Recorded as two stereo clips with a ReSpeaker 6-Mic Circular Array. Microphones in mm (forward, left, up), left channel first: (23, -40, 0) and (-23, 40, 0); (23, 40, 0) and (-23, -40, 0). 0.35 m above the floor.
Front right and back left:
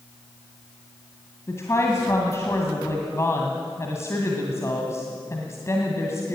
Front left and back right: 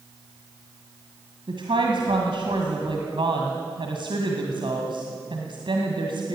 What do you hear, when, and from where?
1.5 s a woman speaking: 115° right, 2 m